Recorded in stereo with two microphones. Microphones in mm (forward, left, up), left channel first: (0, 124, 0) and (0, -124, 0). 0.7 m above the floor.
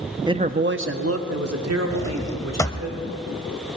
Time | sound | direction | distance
0.3 | a man speaking | 15° right (ahead or behind) | 0.5 m
1.9 | a drawer | 10° left (ahead or behind) | 0.6 m